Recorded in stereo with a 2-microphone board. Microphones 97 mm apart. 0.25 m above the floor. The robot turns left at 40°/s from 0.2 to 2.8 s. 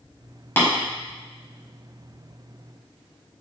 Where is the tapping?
25° left (ahead or behind), 1.2 m.